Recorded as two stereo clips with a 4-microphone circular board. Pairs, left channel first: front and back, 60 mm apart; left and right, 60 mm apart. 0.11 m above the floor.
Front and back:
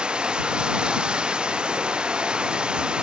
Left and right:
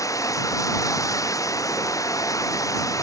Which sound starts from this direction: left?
Running water, at 0.0 s.